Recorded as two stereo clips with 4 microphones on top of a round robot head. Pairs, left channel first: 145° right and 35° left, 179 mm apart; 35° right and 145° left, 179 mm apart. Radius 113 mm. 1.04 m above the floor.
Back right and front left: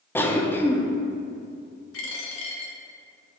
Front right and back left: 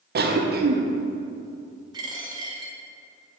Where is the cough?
140° left, 0.9 m.